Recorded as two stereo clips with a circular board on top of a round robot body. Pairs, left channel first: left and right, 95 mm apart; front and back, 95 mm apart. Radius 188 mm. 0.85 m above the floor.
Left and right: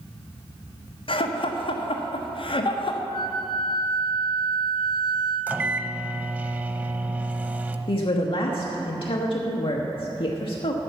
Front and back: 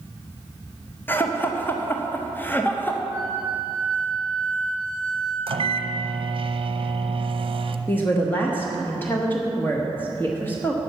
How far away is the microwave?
About 0.8 m.